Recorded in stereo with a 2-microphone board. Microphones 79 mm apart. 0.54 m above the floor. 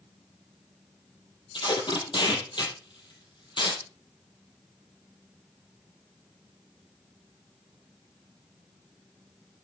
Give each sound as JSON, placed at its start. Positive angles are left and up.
{"t": 1.5, "sound": "tape being pulled", "side_deg": 85, "distance_m": 4.0}